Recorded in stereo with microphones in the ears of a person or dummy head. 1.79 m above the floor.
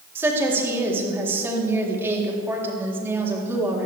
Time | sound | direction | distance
0.1 | a woman speaking | 15° right (ahead or behind) | 3.5 m